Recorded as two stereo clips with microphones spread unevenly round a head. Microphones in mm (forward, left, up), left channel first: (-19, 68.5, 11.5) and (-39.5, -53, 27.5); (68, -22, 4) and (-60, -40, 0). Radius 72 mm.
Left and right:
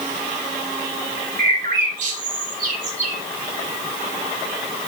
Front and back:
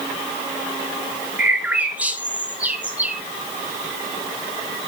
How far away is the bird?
About 1.8 m.